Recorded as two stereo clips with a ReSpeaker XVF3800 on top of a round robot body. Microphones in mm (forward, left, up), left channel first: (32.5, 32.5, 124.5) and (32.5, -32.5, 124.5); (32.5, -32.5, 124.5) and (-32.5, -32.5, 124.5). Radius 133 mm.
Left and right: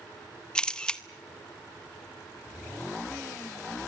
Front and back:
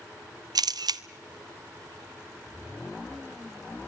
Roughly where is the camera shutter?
Behind.